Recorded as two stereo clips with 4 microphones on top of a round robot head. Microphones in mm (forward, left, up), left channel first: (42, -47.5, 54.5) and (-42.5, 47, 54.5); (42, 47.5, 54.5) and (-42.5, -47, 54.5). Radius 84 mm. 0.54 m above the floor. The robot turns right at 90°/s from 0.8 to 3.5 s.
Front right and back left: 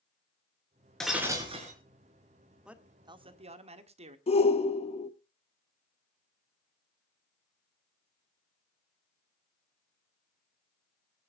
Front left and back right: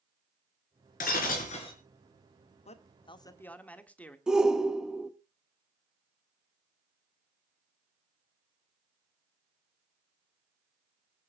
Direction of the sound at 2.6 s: 50° left.